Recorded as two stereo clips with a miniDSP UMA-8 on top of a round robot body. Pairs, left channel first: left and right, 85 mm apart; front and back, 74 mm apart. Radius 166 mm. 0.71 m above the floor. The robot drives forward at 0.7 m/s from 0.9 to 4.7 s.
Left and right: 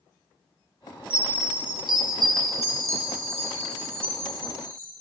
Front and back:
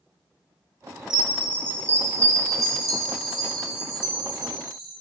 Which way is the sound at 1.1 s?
100° right.